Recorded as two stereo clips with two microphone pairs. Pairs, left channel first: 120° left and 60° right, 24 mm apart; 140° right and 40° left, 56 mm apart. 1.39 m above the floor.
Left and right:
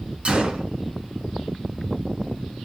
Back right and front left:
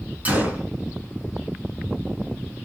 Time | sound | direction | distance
0.2 | a gunshot | 20° right | 3.5 m